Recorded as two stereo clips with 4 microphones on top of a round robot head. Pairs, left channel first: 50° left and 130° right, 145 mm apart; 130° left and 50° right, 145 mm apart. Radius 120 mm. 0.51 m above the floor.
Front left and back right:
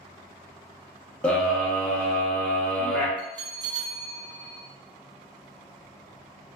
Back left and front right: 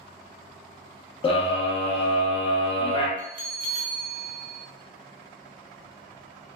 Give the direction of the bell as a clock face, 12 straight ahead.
2 o'clock.